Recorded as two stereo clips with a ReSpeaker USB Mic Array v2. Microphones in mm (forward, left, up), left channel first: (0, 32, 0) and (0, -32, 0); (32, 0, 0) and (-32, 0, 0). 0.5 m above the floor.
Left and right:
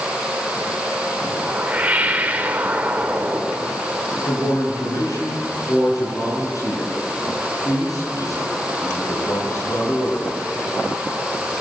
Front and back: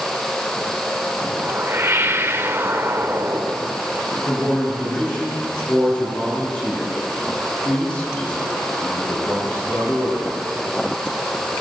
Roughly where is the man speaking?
Left.